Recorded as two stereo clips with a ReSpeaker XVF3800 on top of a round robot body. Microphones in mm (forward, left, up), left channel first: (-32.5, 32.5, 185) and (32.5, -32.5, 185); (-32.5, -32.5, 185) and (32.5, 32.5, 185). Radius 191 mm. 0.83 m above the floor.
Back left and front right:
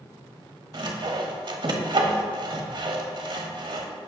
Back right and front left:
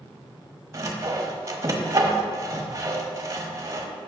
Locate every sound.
0.7 s sawing: 10° right, 1.1 m